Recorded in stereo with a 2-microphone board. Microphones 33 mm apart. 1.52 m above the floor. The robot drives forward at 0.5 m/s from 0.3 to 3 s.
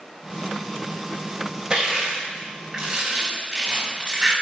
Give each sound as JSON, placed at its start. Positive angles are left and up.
{"t": 1.7, "sound": "crushing", "side_deg": -20, "distance_m": 4.5}